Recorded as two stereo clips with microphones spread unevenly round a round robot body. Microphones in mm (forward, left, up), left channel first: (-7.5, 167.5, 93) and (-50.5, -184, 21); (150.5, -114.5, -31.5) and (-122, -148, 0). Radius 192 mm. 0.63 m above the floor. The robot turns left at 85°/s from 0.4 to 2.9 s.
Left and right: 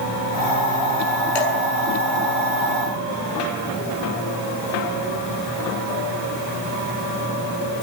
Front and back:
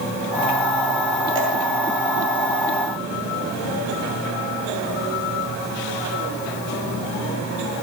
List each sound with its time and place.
1.4 s dripping: 110° left, 6 m; by 1.5 s 95° left, 6 m